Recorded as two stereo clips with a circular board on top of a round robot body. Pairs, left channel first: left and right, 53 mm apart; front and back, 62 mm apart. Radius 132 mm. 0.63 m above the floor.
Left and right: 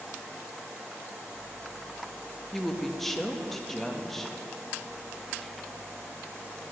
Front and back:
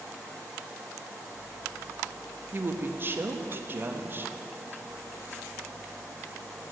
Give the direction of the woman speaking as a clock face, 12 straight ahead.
6 o'clock.